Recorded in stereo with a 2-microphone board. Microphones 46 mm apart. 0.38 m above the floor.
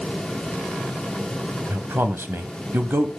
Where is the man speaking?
55° right (ahead or behind), 2.0 m.